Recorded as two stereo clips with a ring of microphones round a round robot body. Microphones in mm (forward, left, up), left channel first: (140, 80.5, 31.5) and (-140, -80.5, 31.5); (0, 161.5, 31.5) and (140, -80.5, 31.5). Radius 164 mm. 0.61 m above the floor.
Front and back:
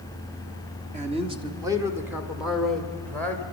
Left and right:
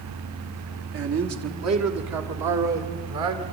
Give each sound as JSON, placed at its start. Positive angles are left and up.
{"t": 0.9, "sound": "a man speaking", "azimuth_deg": -85, "distance_m": 1.5}